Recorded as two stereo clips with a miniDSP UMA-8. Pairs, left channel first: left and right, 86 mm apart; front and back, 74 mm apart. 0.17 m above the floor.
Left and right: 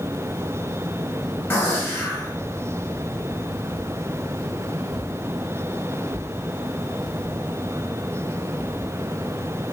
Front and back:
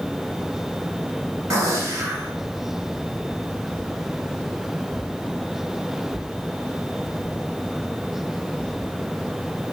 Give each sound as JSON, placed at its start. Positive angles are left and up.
{"t": 1.5, "sound": "a gunshot", "azimuth_deg": 155, "distance_m": 1.3}